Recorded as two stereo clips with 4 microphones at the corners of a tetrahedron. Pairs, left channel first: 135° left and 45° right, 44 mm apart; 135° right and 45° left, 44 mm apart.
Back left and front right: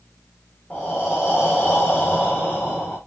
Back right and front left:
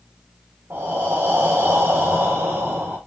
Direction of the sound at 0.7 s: 75° left.